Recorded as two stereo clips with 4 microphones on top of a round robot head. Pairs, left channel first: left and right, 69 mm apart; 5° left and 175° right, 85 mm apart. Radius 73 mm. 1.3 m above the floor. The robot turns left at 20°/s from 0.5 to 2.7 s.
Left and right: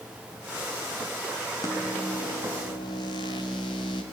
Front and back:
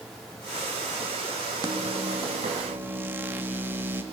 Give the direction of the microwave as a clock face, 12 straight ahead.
7 o'clock.